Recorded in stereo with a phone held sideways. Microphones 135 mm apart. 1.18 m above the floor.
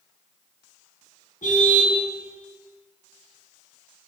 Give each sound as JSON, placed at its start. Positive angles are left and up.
{"t": 1.4, "sound": "a car horn", "side_deg": 75, "distance_m": 5.5}